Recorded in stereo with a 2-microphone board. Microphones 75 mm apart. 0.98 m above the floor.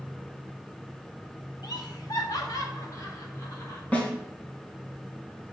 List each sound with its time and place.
1.6 s laughter: 65° left (ahead or behind), 1.5 m; by 3.8 s 45° left (ahead or behind), 2.5 m
3.9 s a snare drum: 20° left (ahead or behind), 3 m